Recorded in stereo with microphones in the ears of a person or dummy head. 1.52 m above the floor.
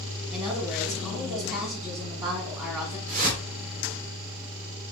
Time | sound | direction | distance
0.3 | a woman speaking | 20° right (ahead or behind) | 1.7 m
3.1 | a whoosh | 45° right (ahead or behind) | 2 m